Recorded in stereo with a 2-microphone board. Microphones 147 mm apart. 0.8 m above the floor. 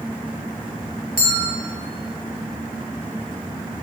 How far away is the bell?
About 2.5 m.